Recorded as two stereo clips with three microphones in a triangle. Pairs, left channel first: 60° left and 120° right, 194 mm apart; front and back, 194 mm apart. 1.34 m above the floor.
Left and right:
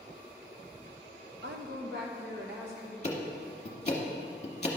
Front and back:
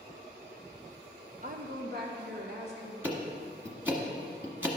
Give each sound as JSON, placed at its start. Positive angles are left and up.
{"t": 1.4, "sound": "a woman speaking", "azimuth_deg": -140, "distance_m": 0.7}
{"t": 3.0, "sound": "ticking", "azimuth_deg": 100, "distance_m": 1.3}